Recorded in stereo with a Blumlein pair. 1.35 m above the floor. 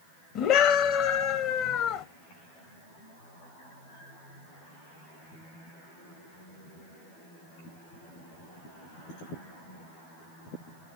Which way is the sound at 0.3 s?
35° left.